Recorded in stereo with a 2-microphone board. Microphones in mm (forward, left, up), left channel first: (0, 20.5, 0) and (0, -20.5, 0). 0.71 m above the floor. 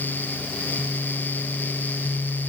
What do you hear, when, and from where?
Only background noise.